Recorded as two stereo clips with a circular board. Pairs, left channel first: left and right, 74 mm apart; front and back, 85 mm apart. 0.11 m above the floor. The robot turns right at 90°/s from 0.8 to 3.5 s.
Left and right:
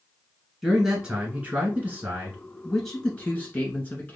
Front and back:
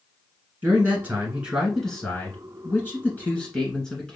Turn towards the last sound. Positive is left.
turn(degrees=65)